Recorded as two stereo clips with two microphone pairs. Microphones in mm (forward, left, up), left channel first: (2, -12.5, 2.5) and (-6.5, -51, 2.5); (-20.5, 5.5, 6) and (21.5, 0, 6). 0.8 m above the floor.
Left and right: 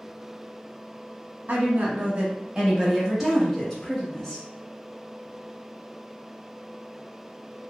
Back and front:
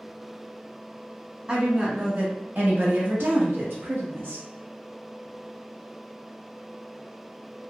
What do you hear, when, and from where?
1.5 s a woman speaking: 80° right, 1.0 m; by 4.5 s 10° left, 1.3 m